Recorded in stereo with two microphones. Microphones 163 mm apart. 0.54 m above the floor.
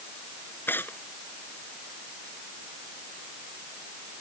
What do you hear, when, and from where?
0.7 s tearing paper: 10° left (ahead or behind)